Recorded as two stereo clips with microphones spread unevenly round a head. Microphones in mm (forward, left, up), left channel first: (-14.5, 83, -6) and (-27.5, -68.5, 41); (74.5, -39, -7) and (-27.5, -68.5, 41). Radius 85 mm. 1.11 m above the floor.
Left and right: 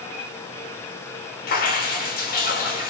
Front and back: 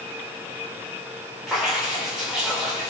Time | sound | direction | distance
1.5 | dripping | 105° left | 4.5 m